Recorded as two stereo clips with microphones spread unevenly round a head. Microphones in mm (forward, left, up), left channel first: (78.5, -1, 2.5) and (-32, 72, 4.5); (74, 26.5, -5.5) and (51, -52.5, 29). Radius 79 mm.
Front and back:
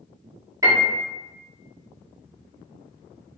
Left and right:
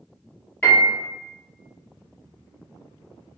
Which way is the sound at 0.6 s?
95° left.